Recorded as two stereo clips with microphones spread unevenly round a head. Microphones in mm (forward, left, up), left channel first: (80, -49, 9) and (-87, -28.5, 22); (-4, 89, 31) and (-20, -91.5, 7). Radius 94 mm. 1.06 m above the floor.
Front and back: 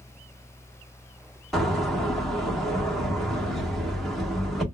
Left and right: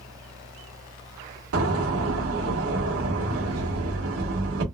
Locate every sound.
1.5 s a door slam: 95° right, 1.5 m